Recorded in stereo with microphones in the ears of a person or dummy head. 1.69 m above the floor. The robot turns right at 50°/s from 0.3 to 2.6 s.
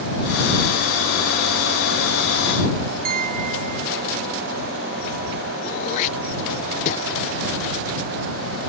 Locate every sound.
3.0 s a piano: 50° right (ahead or behind)
5.6 s throat clearing: 40° left (ahead or behind)